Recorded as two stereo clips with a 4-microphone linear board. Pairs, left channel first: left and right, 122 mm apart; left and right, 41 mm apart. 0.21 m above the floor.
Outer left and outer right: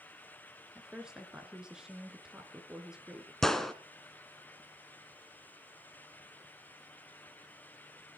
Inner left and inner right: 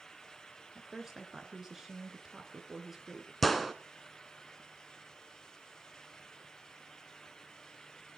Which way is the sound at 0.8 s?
5° right (ahead or behind).